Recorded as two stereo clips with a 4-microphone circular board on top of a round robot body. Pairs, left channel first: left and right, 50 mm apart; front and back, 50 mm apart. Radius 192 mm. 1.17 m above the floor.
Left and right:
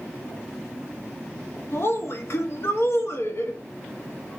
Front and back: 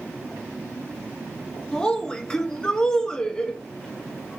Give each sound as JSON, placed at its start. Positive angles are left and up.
{"t": 1.7, "sound": "a woman speaking", "azimuth_deg": 75, "distance_m": 0.9}